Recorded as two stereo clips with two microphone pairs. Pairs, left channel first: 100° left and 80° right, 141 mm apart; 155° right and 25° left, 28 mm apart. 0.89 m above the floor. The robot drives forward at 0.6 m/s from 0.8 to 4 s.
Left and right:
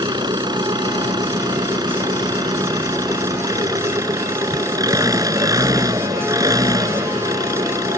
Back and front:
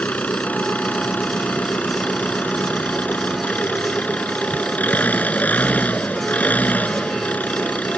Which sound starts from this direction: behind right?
An engine running, at 0.0 s.